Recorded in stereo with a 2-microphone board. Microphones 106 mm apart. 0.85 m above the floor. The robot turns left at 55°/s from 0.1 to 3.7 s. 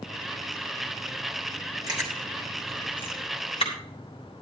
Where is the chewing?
40° right (ahead or behind), 3.5 m; by 3.7 s 60° left (ahead or behind), 3.5 m.